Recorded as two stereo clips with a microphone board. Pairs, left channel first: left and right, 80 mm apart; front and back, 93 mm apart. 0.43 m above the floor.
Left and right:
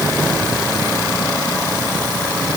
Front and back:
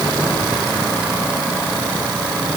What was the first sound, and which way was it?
Only background noise.